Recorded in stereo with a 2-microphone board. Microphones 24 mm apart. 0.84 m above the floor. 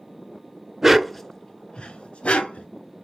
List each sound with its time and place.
0.8 s a dog barking: 15° right (ahead or behind), 0.8 m; by 2.7 s 70° left (ahead or behind), 1.8 m